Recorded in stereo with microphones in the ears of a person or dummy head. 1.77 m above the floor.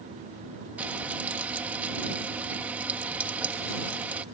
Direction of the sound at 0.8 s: 10° right (ahead or behind).